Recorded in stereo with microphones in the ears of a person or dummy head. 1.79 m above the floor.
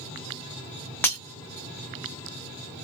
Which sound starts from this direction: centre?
Breaking glass, at 1.0 s.